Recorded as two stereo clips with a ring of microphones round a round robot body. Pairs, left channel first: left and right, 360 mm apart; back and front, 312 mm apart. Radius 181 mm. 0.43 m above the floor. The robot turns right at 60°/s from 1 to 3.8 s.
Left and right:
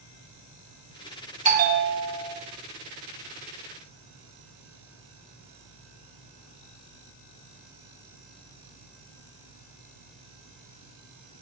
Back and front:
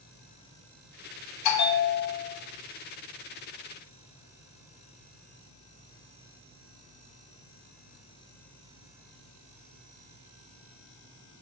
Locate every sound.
1.4 s a bell: 160° right, 1.5 m; by 2.4 s 105° right, 1.5 m